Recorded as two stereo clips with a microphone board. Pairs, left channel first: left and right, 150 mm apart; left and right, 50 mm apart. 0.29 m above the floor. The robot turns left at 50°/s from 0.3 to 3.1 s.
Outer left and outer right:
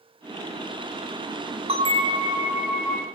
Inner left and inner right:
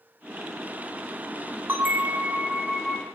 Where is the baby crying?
No baby crying in this recording.